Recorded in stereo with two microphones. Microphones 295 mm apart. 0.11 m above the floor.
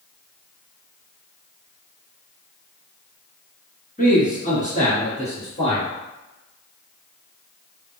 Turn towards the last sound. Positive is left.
turn(degrees=20)  # may be behind; listen again after turning